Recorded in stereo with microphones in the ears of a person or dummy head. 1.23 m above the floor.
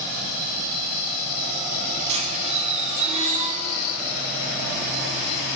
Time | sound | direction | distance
2.1 | a squeak | 35° right (ahead or behind) | 4 m